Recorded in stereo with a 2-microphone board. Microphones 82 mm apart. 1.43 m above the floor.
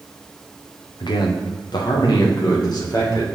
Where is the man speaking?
60° left (ahead or behind), 0.9 m; by 3.2 s 50° left (ahead or behind), 2.0 m.